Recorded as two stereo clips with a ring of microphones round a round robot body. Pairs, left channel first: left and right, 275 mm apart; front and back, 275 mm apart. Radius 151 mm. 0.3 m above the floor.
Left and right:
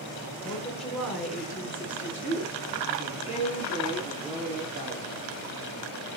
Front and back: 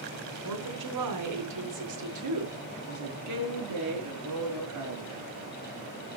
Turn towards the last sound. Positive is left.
turn(degrees=-160)